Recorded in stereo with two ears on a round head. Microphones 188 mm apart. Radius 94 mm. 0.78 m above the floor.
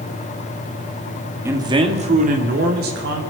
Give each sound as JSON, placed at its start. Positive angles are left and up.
{"t": 1.4, "sound": "a man speaking", "side_deg": -10, "distance_m": 1.8}